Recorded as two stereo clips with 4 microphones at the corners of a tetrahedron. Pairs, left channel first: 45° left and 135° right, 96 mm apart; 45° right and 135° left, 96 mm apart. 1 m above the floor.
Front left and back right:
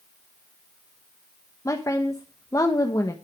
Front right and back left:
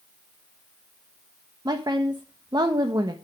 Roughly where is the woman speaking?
Left.